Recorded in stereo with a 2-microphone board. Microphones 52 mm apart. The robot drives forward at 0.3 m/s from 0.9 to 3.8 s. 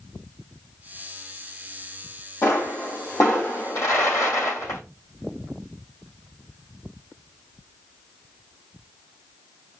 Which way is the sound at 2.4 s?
75° left (ahead or behind).